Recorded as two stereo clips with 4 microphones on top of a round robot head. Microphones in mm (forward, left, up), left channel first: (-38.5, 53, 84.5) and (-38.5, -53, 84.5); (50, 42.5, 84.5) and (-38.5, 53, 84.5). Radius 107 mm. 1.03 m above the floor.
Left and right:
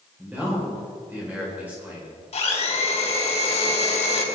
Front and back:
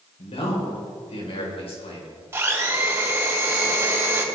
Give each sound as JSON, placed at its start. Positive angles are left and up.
{"t": 0.2, "sound": "a man speaking", "azimuth_deg": -15, "distance_m": 4.5}
{"t": 2.3, "sound": "a blender", "azimuth_deg": 110, "distance_m": 3.5}